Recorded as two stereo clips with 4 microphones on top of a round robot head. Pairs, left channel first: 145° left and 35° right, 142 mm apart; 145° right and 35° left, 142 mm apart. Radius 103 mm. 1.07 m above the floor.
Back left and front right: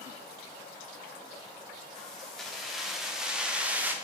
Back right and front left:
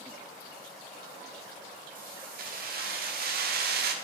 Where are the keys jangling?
60° left, 2 m; by 4.0 s 45° left, 1.2 m.